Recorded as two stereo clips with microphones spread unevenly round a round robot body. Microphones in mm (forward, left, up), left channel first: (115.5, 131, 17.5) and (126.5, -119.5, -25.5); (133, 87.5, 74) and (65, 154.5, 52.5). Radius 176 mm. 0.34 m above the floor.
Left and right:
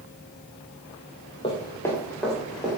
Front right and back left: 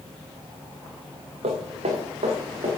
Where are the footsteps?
165° left, 1.5 m; by 2.7 s 175° right, 3.5 m.